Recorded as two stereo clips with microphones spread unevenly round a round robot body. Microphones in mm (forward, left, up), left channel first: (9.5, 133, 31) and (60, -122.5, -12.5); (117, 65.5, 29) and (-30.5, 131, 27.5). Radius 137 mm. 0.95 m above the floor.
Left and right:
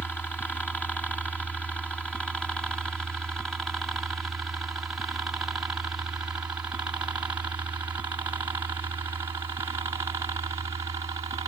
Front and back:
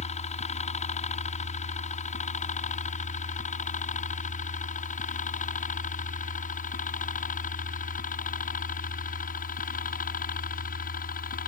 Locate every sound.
0.0 s a helicopter: 15° left; by 11.5 s 10° right